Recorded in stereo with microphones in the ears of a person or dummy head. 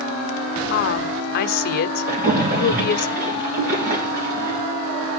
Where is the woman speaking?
60° left (ahead or behind), 0.9 m.